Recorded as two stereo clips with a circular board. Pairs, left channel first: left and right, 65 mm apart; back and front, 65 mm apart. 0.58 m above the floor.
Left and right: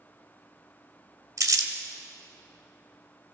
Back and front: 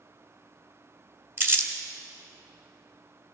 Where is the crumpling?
55° right, 1.2 m.